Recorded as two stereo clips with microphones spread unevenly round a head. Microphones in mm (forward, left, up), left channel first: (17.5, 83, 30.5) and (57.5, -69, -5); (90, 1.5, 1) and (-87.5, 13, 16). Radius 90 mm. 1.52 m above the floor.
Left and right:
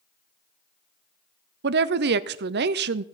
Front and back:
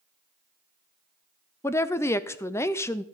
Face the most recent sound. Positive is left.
turn(degrees=-80)